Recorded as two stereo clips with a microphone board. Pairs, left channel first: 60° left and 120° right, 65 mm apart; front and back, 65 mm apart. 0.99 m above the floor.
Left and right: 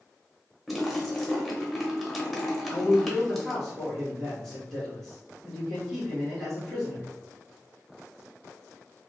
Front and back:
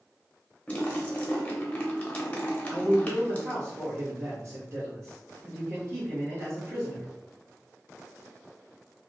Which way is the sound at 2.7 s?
145° left.